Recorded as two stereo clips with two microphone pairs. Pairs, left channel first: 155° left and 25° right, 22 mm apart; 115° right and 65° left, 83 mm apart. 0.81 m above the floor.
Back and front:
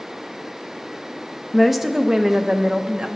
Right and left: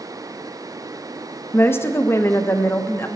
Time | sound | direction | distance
1.5 | a woman speaking | 125° right | 0.6 m